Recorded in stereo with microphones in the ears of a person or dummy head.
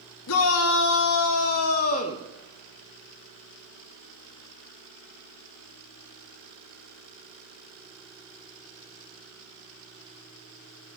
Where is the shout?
75° left (ahead or behind), 1.5 m; by 2.2 s 35° left (ahead or behind), 1.0 m.